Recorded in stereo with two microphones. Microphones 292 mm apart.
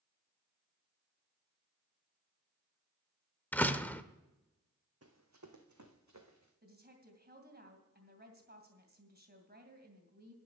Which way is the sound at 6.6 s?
35° right (ahead or behind).